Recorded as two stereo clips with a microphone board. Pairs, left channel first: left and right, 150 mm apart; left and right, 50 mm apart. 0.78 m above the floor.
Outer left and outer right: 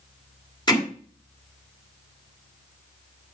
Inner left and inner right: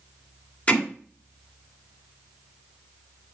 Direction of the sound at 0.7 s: 30° left (ahead or behind).